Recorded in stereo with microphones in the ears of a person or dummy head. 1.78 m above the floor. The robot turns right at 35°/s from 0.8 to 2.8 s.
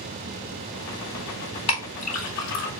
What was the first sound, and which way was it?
A clink, 30° left (ahead or behind).